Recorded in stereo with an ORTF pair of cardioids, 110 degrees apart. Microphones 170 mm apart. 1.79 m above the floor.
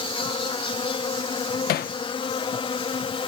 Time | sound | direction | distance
0.0 | an insect | 30° left | ?
1.7 | hammering | 70° left | ?